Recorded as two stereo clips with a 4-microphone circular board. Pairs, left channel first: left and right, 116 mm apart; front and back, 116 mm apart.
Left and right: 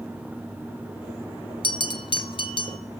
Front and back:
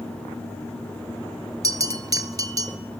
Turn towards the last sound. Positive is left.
turn(degrees=125)